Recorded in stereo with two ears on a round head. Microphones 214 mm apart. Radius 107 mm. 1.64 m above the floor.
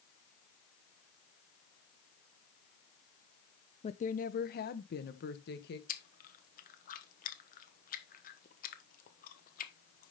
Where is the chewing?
35° left (ahead or behind), 1.1 m.